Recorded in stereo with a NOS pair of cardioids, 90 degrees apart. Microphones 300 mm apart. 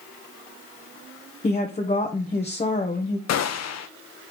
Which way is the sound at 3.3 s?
60° left.